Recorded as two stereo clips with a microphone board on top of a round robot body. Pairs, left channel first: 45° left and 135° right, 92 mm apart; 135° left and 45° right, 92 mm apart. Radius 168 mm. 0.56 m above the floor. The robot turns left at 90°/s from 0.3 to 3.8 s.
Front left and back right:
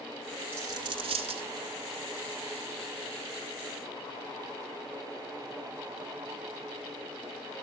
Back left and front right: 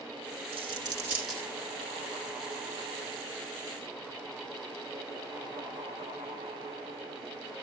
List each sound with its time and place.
0.5 s a dropped coin: 65° right, 1.8 m; by 1.5 s 150° right, 1.8 m